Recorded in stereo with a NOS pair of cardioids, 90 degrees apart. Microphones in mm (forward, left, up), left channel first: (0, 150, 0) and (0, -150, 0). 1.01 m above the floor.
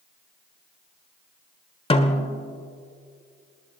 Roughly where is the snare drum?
Ahead.